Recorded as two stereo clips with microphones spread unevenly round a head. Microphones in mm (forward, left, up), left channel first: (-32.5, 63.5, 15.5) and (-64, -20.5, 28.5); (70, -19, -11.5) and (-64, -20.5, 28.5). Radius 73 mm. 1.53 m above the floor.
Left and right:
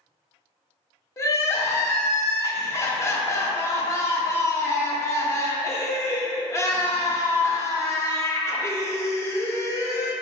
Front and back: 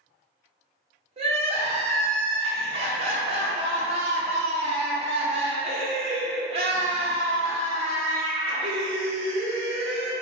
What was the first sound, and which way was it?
Crying, 125° left.